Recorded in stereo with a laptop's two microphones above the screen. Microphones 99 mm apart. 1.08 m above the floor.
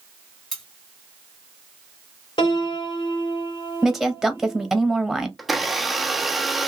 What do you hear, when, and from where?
0.5 s cutlery clinking: 5° left (ahead or behind), 1.3 m
2.4 s a piano: 55° left (ahead or behind), 1.0 m
3.8 s a woman speaking: 5° right (ahead or behind), 0.9 m
5.4 s a blender: centre (ahead or behind), 0.6 m